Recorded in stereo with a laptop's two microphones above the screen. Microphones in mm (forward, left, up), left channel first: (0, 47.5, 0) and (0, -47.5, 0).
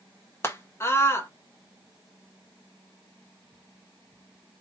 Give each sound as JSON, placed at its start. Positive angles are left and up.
{"t": 0.4, "sound": "a scream", "side_deg": 25, "distance_m": 1.0}